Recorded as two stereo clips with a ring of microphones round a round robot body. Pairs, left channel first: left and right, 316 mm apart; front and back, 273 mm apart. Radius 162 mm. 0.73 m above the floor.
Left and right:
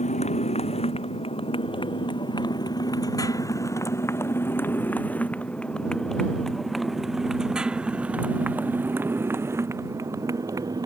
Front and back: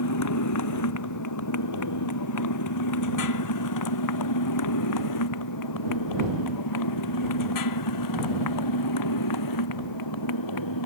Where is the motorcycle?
20° left; by 10.9 s 10° right.